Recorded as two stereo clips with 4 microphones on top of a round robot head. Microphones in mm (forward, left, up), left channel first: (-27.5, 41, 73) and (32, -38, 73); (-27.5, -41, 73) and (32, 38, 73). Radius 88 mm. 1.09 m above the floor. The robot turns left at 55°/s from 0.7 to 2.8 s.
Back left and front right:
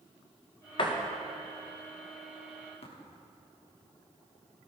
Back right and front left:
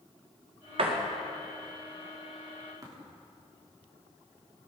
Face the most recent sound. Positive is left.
turn(degrees=110)